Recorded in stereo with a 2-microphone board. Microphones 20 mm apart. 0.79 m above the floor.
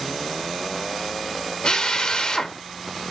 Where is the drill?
50° left (ahead or behind), 0.7 m.